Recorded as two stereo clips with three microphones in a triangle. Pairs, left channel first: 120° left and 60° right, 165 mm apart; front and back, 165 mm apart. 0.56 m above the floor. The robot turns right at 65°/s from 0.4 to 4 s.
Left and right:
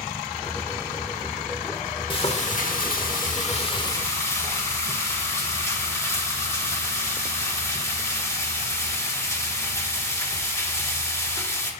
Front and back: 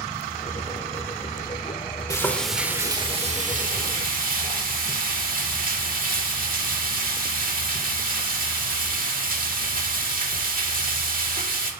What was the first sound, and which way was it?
Frying, 65° left.